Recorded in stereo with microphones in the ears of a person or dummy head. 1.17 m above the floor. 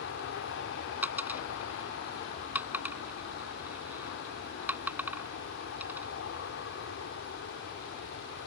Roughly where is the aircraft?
Left.